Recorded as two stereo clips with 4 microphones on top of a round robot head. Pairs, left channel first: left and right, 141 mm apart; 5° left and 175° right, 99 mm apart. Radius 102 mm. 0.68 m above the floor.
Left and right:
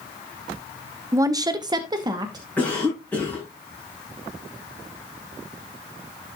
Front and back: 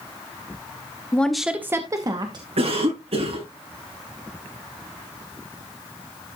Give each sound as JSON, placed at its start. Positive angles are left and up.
{"t": 1.1, "sound": "a woman speaking", "azimuth_deg": -50, "distance_m": 0.9}
{"t": 2.6, "sound": "a cough", "azimuth_deg": 170, "distance_m": 8.0}